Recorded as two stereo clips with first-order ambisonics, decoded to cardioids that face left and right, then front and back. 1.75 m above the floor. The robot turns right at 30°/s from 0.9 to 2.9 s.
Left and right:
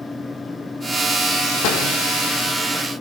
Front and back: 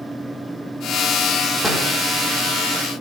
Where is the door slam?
90° left, 4 m; by 1.9 s 100° left, 4 m.